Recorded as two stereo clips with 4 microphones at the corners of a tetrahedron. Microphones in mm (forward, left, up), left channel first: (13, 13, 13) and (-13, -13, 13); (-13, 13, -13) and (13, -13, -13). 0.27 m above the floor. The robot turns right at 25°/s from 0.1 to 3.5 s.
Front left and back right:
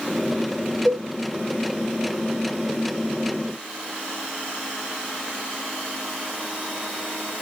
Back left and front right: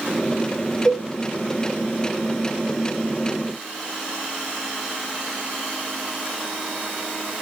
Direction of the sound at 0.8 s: 95° right.